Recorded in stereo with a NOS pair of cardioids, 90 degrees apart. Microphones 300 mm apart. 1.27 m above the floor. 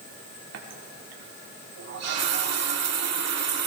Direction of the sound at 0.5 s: 60° right.